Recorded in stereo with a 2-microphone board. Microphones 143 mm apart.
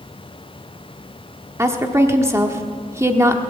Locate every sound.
1.6 s a woman speaking: 20° right (ahead or behind), 1.2 m